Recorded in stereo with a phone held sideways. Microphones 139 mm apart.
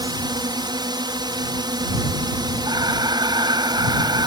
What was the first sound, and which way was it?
A drone, 35° right (ahead or behind).